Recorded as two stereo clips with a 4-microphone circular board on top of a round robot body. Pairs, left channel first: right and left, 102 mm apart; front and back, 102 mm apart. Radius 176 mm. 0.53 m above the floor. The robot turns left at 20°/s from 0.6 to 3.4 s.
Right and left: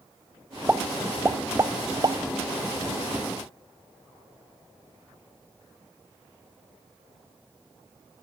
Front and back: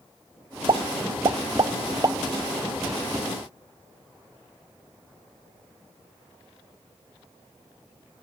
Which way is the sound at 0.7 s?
160° left.